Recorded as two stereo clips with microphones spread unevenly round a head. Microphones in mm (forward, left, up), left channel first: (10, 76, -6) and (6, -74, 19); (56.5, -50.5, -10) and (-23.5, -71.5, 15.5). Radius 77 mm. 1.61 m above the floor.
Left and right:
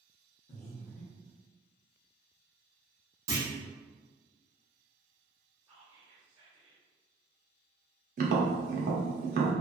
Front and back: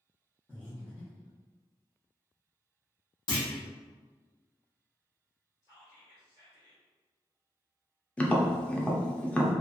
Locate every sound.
0.5 s breathing: 110° left, 0.9 m
3.3 s a clunk: 20° right, 1.0 m
5.6 s whispering: 10° right, 1.3 m
8.2 s tapping: 70° right, 0.6 m